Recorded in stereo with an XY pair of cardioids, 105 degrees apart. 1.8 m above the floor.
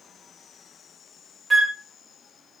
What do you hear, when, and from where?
1.5 s a flute: 25° right, 0.6 m